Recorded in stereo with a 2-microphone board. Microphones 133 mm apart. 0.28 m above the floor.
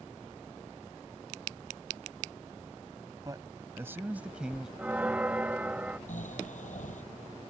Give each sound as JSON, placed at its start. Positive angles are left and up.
{"t": 3.2, "sound": "a man speaking", "side_deg": -30}
{"t": 4.8, "sound": "a bell", "side_deg": -10}
{"t": 6.1, "sound": "snoring", "side_deg": 70}